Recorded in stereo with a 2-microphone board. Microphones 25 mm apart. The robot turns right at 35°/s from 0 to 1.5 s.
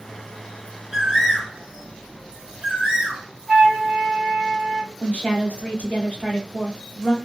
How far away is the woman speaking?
About 1.0 m.